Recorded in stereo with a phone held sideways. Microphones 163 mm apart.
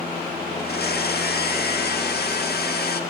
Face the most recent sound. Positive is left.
turn(degrees=80)